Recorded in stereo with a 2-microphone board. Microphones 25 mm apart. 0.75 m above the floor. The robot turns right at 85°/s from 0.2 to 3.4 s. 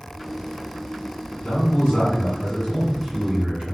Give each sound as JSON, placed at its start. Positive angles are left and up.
{"t": 1.4, "sound": "a man speaking", "azimuth_deg": 65, "distance_m": 1.7}